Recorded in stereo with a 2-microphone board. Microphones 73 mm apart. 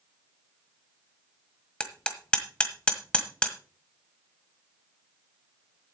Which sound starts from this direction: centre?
Hammering, at 1.8 s.